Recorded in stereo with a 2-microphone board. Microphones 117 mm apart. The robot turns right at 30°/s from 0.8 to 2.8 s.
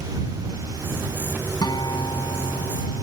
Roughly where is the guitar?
Ahead left.